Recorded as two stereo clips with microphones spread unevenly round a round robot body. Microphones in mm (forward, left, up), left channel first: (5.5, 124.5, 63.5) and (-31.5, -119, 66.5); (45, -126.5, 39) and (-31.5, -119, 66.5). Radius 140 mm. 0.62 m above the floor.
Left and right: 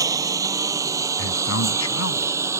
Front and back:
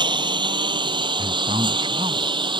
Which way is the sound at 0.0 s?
175° right.